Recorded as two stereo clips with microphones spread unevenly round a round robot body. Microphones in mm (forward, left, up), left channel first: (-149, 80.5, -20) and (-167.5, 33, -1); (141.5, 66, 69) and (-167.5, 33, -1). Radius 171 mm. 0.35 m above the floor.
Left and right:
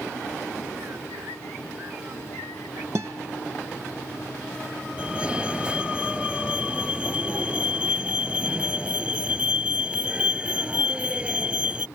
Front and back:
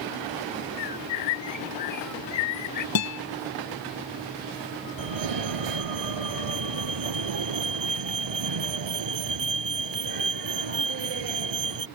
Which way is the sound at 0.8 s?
40° right.